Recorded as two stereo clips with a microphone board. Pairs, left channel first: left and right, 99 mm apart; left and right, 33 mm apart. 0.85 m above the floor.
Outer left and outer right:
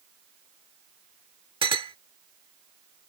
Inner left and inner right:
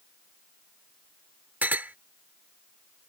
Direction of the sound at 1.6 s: 60° right (ahead or behind).